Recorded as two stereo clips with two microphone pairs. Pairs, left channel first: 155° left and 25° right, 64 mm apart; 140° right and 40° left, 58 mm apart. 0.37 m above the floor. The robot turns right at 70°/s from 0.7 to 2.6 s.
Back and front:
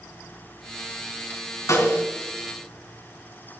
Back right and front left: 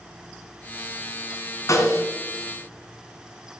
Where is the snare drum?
170° right, 3 m; by 2.0 s 150° right, 3 m.